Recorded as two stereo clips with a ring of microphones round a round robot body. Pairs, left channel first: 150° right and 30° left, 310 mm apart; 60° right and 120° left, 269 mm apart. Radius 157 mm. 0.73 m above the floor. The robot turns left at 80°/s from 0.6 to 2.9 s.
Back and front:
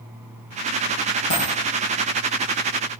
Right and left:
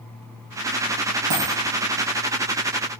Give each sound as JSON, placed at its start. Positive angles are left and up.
{"t": 1.3, "sound": "a dropped coin", "azimuth_deg": 155, "distance_m": 3.0}